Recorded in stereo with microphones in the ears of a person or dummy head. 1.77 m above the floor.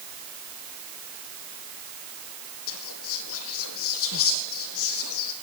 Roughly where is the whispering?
Left.